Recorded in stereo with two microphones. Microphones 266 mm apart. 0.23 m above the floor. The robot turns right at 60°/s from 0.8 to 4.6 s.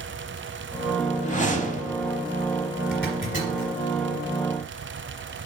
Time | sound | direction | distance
1.2 | a whoosh | 25° left (ahead or behind) | 0.7 m
2.9 | a zipper | 50° left (ahead or behind) | 2.5 m